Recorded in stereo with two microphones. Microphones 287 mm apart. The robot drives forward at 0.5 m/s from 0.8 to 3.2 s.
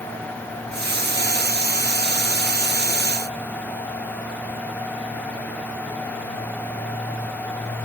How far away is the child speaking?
No child speaking in this recording.